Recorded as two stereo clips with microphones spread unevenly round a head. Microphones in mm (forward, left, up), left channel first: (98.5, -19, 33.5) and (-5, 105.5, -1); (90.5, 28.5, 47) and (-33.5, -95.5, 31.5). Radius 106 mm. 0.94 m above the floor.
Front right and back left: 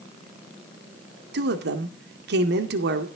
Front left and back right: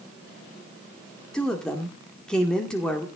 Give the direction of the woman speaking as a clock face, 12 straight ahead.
8 o'clock.